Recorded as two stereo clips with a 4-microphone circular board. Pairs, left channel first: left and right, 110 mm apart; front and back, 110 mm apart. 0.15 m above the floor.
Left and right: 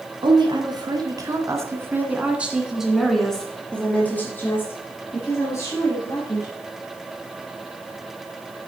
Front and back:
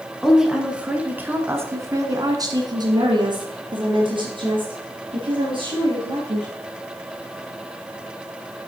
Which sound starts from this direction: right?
A woman speaking, at 0.2 s.